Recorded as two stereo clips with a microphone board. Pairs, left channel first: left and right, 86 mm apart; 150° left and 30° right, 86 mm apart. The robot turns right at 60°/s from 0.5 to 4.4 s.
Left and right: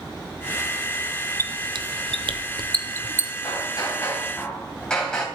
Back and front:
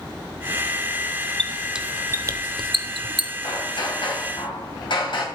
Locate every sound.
1.4 s a squeak: 130° right, 0.7 m; by 3.3 s 15° right, 0.7 m
3.4 s hammering: 115° left, 3 m; by 5.3 s 170° left, 3 m